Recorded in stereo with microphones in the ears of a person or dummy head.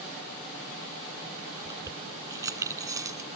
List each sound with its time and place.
1.6 s keys jangling: 20° right (ahead or behind)